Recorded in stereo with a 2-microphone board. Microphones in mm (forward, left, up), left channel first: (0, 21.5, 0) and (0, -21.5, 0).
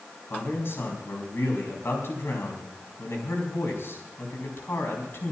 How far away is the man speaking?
About 4.5 m.